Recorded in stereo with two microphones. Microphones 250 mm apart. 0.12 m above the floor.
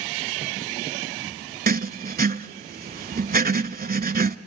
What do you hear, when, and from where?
1.7 s writing: 35° right (ahead or behind), 0.6 m